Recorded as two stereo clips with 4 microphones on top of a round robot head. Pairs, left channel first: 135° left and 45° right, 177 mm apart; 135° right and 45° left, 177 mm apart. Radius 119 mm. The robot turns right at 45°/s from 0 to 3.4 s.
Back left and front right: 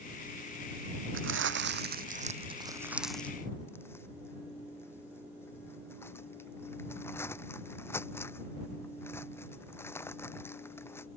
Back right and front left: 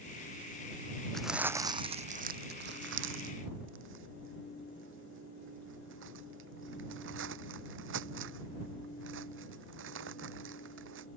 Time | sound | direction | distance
1.1 | crumpling | 45° right | ?